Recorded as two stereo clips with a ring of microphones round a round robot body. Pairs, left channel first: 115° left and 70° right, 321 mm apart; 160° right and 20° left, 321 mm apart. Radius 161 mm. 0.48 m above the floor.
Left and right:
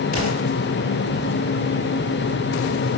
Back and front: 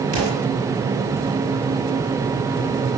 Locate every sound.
0.1 s an explosion: 90° left, 5.5 m